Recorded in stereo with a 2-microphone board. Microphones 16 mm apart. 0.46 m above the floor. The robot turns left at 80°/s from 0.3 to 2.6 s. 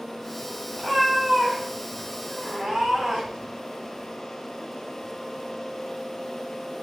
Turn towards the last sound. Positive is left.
turn(degrees=-110)